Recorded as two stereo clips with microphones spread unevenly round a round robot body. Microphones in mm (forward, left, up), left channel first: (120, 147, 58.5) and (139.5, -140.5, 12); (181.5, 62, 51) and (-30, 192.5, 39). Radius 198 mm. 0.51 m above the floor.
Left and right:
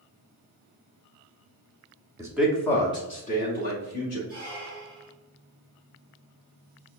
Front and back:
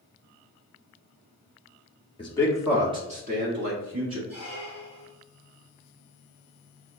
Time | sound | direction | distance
2.2 | a man speaking | 60° right | 0.8 m
4.3 | a squeak | 155° right | 1.9 m